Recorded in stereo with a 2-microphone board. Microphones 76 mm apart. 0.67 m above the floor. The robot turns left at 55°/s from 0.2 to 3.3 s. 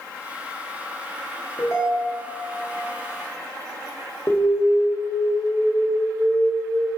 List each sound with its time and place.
1.6 s a ringtone: 125° left, 0.9 m; by 2.4 s 80° left, 0.9 m
4.3 s an alarm: 40° left (ahead or behind), 0.7 m